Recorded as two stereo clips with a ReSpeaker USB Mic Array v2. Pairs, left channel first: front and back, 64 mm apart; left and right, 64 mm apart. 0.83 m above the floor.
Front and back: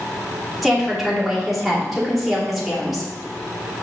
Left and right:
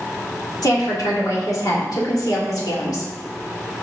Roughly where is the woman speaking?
Left.